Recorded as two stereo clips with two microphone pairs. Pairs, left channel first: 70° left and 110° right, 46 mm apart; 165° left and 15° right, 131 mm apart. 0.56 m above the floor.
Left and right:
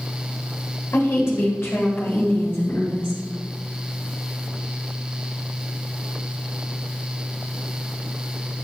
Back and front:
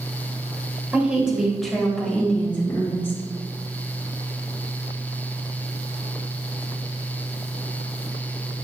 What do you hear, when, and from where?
0.9 s a woman speaking: 65° left, 3 m; by 3.2 s 95° left, 3.5 m